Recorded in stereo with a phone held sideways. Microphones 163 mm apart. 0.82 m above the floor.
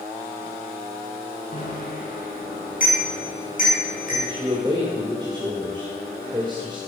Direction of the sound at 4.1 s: 30° right (ahead or behind).